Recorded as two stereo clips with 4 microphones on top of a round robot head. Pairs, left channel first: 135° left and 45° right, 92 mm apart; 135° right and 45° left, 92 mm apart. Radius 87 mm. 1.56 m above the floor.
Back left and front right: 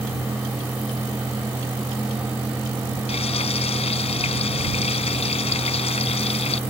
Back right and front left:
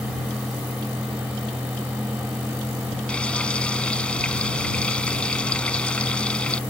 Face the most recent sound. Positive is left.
turn(degrees=145)